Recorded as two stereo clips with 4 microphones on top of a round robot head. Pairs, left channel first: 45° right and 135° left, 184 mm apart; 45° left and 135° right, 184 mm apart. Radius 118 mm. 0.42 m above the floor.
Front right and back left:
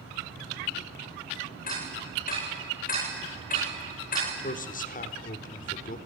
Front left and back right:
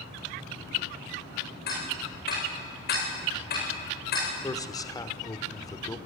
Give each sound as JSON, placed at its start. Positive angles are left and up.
{"t": 1.7, "sound": "ticking", "azimuth_deg": 5, "distance_m": 10.0}
{"t": 4.4, "sound": "a man speaking", "azimuth_deg": -20, "distance_m": 1.2}